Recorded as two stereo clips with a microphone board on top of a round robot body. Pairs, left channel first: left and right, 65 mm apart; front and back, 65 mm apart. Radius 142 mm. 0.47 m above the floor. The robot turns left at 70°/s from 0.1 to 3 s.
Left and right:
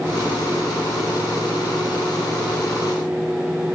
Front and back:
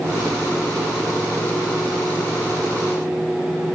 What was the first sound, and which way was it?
Only background noise.